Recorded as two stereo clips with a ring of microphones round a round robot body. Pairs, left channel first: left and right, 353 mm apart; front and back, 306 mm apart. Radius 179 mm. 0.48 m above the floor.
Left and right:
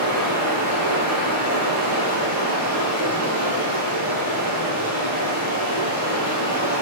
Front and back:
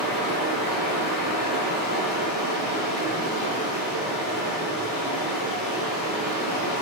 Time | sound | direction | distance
0.0 | running water | 50° right | 3.5 m